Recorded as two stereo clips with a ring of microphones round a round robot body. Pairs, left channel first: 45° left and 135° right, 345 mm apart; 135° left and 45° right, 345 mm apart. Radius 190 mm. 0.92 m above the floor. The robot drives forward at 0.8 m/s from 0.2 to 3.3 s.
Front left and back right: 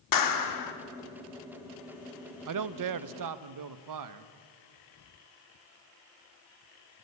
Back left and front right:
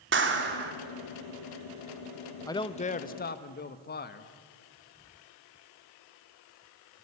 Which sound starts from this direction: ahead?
A clap, at 0.1 s.